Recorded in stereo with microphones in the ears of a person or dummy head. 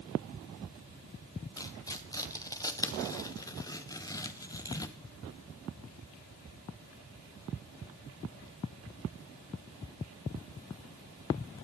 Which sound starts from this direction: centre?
Tearing paper, at 1.6 s.